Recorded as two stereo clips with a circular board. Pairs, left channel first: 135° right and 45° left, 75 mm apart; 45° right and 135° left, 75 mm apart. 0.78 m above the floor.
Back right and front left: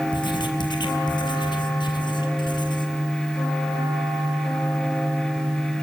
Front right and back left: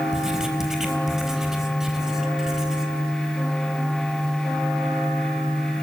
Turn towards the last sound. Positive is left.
turn(degrees=-140)